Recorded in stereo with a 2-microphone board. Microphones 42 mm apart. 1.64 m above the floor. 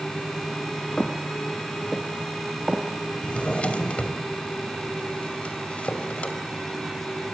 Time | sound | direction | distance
1.0 | footsteps | 20° left (ahead or behind) | 1.8 m
3.2 | a drawer | 35° left (ahead or behind) | 2.5 m